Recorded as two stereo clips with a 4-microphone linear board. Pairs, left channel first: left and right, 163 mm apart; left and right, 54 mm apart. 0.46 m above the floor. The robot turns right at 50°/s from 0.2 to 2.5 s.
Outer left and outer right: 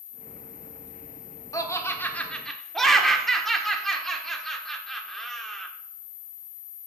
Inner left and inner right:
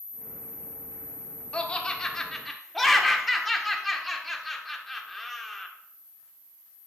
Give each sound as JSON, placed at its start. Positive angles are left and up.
{"t": 1.5, "sound": "laughter", "side_deg": 20, "distance_m": 1.1}